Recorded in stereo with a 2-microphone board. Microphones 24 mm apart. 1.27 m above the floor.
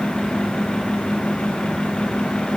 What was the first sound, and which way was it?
Only background noise.